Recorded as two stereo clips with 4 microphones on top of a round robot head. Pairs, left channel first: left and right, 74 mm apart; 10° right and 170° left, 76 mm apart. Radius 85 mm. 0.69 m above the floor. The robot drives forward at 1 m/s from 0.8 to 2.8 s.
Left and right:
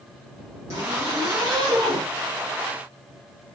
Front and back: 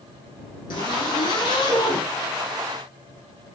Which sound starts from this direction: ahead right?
A zipper, at 0.7 s.